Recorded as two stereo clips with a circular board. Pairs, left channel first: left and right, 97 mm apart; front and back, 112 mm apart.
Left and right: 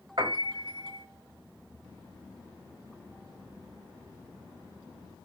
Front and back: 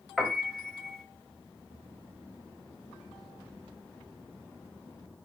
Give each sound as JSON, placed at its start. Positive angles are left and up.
{"t": 0.2, "sound": "a piano", "azimuth_deg": -90, "distance_m": 1.4}